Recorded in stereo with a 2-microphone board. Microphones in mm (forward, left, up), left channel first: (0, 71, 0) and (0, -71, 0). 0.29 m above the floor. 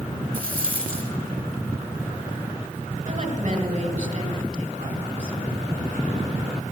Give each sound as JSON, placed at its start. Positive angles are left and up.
{"t": 0.3, "sound": "a rattle", "side_deg": -80, "distance_m": 2.5}
{"t": 3.0, "sound": "a woman speaking", "side_deg": -60, "distance_m": 2.5}